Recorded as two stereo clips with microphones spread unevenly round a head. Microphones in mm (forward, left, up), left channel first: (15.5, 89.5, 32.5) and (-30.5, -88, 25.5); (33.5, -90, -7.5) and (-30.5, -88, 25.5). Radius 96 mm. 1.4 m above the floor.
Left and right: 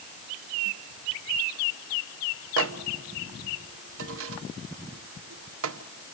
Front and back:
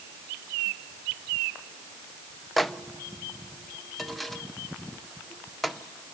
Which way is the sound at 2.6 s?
90° right.